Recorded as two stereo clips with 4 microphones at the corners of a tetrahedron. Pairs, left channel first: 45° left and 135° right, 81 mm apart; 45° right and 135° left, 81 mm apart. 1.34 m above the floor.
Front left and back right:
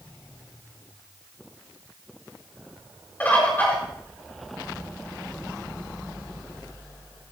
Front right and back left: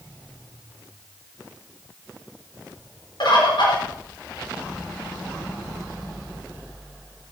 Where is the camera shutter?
No camera shutter in this recording.